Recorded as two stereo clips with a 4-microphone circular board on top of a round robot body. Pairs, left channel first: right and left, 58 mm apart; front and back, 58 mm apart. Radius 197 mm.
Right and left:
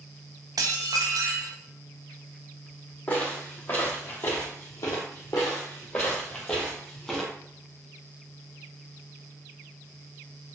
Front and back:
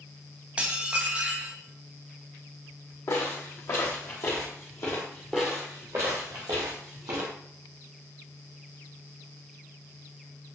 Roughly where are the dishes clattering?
Left.